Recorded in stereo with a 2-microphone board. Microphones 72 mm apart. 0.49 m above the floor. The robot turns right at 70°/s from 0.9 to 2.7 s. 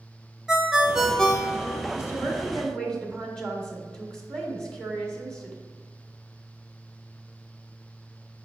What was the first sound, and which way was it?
A ringtone, 10° right.